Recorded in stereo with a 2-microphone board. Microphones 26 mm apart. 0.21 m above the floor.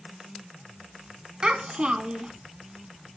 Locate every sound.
1.4 s a child speaking: 40° right (ahead or behind), 1.1 m